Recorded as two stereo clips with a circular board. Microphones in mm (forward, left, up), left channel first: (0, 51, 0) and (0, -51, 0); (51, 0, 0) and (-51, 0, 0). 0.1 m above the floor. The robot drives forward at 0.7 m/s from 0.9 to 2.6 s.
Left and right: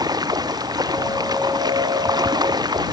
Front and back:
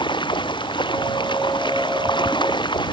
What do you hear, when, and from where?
0.0 s running water: 40° right